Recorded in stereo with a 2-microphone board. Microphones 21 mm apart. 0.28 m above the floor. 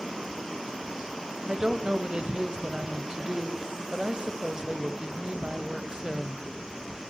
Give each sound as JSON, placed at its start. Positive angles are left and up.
{"t": 1.5, "sound": "a woman speaking", "side_deg": -35, "distance_m": 1.2}